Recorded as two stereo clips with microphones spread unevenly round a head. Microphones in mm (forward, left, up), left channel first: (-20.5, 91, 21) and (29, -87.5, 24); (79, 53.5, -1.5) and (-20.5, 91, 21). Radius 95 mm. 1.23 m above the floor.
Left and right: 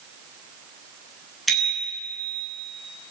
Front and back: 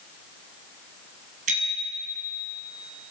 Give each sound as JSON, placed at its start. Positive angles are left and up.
{"t": 1.5, "sound": "a bicycle bell", "azimuth_deg": -165, "distance_m": 7.0}